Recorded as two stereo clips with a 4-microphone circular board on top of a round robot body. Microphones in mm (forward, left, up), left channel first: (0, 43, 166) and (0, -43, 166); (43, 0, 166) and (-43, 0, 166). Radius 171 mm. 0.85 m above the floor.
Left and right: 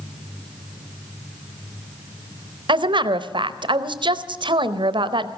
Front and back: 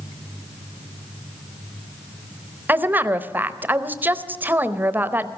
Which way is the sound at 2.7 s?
110° right.